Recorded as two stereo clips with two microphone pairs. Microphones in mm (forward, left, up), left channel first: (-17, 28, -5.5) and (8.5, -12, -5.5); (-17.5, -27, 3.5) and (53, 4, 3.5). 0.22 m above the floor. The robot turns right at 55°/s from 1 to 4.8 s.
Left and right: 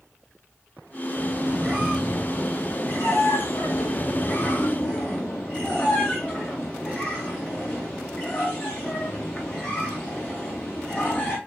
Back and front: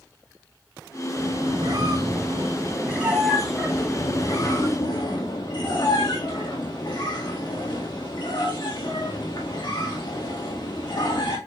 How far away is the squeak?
About 3.5 m.